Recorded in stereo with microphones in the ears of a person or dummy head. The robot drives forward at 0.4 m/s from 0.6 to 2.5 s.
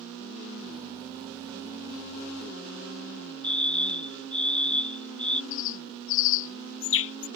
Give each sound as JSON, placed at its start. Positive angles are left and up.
{"t": 3.4, "sound": "a fire alarm", "side_deg": 5}
{"t": 5.5, "sound": "a bird", "side_deg": 75}